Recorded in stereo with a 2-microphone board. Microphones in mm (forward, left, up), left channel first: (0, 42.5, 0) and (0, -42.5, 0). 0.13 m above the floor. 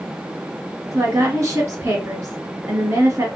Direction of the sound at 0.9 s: 25° right (ahead or behind).